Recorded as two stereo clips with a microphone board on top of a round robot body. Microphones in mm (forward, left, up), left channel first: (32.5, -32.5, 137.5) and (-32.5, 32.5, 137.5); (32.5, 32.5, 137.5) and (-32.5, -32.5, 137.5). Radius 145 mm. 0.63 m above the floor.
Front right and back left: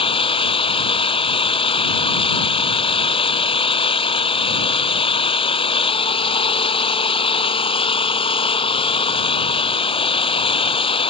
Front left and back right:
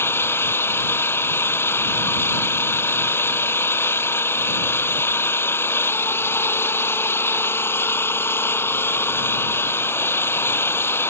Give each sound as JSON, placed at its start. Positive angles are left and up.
{"t": 0.0, "sound": "an engine running", "azimuth_deg": -25}